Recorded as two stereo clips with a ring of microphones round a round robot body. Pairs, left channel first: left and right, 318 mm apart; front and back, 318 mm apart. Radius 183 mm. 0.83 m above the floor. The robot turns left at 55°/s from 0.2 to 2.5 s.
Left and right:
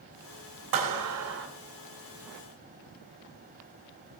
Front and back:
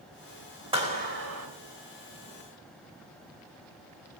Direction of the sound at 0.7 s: 105° right.